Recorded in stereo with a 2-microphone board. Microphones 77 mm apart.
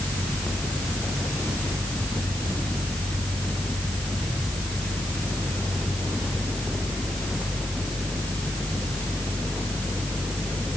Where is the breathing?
I don't hear breathing.